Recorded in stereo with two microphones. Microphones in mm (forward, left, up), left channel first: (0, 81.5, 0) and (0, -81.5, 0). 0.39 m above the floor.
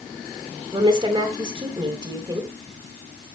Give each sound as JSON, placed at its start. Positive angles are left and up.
{"t": 0.7, "sound": "a woman speaking", "side_deg": -30, "distance_m": 2.5}